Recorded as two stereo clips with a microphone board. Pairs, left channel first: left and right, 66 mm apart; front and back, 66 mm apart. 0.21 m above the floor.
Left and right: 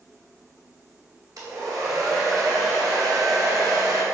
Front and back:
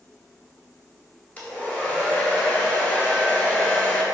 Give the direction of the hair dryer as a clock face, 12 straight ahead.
2 o'clock.